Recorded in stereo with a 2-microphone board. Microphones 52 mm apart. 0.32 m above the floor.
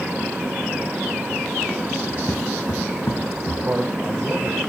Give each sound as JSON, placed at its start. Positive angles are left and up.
{"t": 2.1, "sound": "footsteps", "side_deg": 55, "distance_m": 2.5}
{"t": 3.6, "sound": "a man speaking", "side_deg": -35, "distance_m": 1.9}